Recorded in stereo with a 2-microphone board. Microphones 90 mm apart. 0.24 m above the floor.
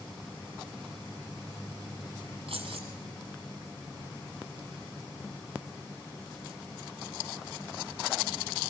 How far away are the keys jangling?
About 6.5 m.